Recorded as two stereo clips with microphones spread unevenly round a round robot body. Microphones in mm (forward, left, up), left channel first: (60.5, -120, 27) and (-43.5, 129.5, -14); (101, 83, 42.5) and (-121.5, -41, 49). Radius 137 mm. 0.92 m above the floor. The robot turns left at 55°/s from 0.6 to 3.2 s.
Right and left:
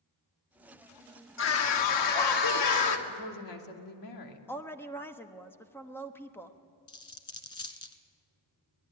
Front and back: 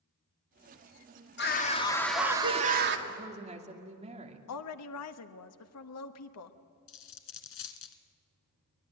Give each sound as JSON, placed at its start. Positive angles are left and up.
{"t": 1.4, "sound": "a scream", "azimuth_deg": -20, "distance_m": 2.5}
{"t": 3.1, "sound": "a woman speaking", "azimuth_deg": -75, "distance_m": 2.5}
{"t": 4.5, "sound": "a woman speaking", "azimuth_deg": 20, "distance_m": 1.3}
{"t": 6.9, "sound": "a dropped coin", "azimuth_deg": -5, "distance_m": 1.3}